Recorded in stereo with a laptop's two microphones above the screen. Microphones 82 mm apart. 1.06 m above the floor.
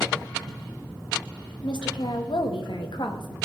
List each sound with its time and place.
1.6 s a woman speaking: 65° left (ahead or behind), 1.1 m; by 3.3 s 60° left (ahead or behind), 1.4 m